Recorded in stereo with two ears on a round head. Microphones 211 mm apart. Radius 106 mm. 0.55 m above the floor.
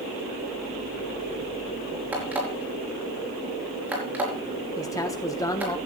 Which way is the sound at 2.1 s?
10° right (ahead or behind).